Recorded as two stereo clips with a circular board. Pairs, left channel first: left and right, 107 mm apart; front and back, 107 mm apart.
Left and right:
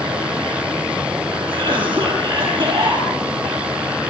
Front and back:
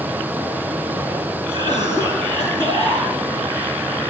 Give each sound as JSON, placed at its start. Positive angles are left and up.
{"t": 1.5, "sound": "a cough", "azimuth_deg": -130, "distance_m": 10.0}